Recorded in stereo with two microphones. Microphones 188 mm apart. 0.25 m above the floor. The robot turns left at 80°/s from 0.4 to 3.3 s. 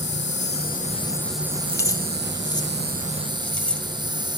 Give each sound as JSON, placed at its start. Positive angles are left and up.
{"t": 0.0, "sound": "an insect", "azimuth_deg": 75, "distance_m": 1.2}
{"t": 1.7, "sound": "keys jangling", "side_deg": 15, "distance_m": 0.6}